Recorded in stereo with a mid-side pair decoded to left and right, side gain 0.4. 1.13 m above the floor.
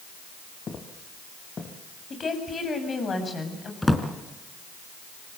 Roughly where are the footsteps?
Ahead left.